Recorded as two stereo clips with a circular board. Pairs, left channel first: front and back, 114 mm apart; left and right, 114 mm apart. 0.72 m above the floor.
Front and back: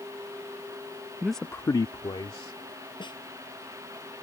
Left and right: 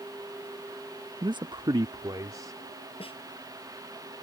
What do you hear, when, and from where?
1.2 s a man speaking: 110° right; by 2.6 s 35° right
3.0 s a snare drum: 50° left